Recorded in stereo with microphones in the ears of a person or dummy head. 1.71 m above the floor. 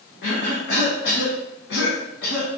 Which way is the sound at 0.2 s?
65° left (ahead or behind).